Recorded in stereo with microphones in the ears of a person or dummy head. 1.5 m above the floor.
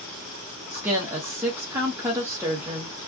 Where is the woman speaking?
10° right (ahead or behind), 0.8 m.